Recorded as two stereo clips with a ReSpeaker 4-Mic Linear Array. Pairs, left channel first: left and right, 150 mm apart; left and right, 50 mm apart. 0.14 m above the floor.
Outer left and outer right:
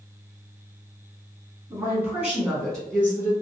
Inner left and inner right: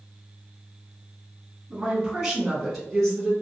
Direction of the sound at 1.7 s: 20° right (ahead or behind).